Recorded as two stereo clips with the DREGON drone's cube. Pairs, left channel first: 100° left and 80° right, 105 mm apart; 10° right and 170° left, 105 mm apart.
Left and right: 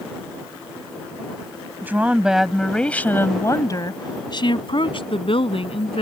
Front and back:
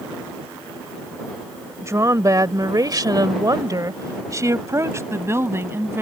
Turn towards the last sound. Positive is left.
turn(degrees=105)